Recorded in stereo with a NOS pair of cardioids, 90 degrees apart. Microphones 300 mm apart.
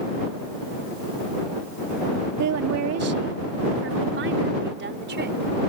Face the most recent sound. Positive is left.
turn(degrees=-35)